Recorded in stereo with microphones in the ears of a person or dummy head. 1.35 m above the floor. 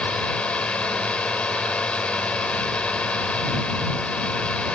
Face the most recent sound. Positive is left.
turn(degrees=10)  # may be behind; listen again after turning